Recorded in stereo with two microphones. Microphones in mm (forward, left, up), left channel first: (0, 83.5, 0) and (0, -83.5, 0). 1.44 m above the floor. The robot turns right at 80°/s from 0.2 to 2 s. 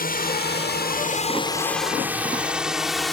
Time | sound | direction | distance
0.0 | a drone | 60° left (ahead or behind) | ?